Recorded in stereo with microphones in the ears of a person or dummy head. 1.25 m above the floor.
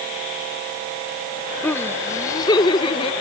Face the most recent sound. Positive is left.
turn(degrees=30)  # may be behind; listen again after turning